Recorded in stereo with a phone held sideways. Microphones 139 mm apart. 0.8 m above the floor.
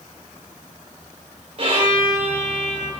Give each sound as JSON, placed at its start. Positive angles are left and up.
{"t": 1.6, "sound": "a violin", "side_deg": -50, "distance_m": 3.5}